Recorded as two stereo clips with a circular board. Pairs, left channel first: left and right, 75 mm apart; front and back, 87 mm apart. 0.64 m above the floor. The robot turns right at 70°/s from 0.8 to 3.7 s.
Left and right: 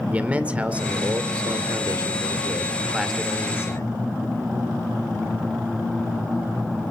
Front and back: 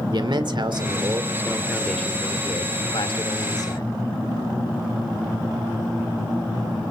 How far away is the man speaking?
About 1.8 m.